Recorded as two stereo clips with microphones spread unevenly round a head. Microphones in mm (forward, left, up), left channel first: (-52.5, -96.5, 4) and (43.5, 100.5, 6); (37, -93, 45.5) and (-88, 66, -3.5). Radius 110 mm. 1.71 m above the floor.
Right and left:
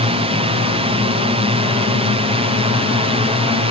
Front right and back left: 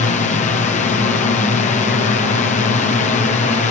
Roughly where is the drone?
Ahead.